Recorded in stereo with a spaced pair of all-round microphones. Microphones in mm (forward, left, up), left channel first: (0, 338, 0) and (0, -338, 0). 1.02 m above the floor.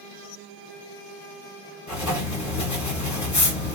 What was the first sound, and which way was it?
Writing, 25° left (ahead or behind).